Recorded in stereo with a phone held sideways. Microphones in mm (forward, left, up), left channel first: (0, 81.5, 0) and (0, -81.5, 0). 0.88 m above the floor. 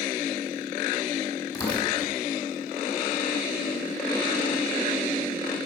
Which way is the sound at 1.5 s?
25° left (ahead or behind).